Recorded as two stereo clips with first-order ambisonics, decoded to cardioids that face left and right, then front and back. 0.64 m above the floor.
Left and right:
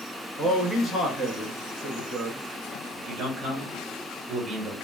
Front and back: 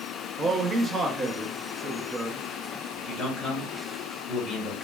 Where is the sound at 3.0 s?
65° right, 1.2 m.